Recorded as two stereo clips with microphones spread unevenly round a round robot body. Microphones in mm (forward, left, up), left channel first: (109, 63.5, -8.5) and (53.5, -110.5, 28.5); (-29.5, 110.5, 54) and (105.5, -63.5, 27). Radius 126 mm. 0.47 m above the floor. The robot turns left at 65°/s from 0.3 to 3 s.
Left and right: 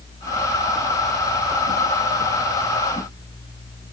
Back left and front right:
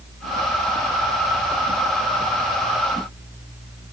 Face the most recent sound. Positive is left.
No sound to turn to.